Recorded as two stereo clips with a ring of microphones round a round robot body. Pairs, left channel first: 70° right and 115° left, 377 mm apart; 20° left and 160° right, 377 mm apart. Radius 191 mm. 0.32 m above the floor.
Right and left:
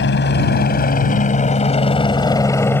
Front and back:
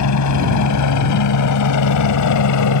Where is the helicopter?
10° right; by 2.8 s 15° left.